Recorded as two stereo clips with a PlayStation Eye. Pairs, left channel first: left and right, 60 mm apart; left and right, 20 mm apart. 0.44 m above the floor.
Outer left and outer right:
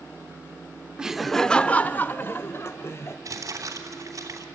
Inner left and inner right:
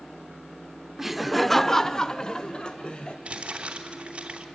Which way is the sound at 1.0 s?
15° right (ahead or behind).